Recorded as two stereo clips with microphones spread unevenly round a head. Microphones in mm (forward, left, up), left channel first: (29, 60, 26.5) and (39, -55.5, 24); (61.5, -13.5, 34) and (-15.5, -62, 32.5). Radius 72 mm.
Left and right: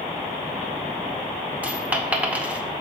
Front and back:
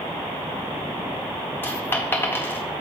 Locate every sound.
1.6 s a dropped coin: 15° right, 0.8 m